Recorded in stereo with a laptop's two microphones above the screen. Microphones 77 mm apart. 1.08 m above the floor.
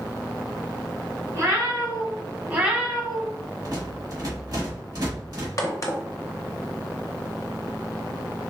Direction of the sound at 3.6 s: 55° right (ahead or behind).